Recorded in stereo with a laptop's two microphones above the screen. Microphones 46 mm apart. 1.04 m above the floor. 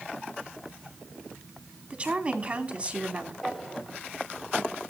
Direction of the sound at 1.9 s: 30° right (ahead or behind).